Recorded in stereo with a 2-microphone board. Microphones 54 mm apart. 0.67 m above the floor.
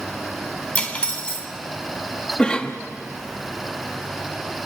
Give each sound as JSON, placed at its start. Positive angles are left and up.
{"t": 0.8, "sound": "cutlery clinking", "side_deg": 25, "distance_m": 2.5}
{"t": 2.4, "sound": "a cough", "side_deg": 15, "distance_m": 0.9}